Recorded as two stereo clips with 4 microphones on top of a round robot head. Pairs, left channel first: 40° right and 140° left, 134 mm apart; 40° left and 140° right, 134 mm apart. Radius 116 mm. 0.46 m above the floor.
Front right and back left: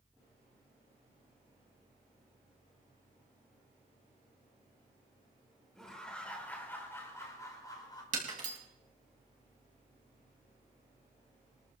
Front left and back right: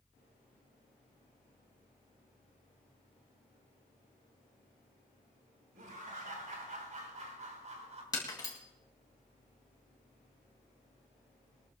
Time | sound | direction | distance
5.8 | laughter | 130° right | 4 m
8.1 | breaking glass | 105° left | 3 m